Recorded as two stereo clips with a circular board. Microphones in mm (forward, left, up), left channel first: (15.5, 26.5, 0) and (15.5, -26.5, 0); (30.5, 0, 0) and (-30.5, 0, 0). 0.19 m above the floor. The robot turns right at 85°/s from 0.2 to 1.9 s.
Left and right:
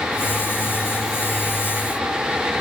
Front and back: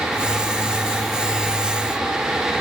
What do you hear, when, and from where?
Only background noise.